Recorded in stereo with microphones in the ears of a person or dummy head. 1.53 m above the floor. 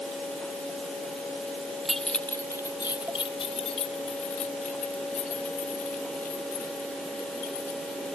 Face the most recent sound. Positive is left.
turn(degrees=45)  # may be behind; listen again after turning